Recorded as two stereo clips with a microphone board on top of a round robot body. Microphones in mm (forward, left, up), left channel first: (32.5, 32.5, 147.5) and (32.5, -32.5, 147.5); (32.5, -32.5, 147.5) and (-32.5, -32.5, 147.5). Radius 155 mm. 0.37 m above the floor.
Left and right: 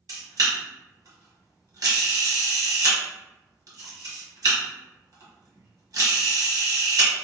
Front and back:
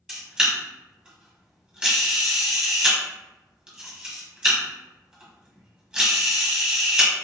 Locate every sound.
0.1 s a camera shutter: 110° right, 1.4 m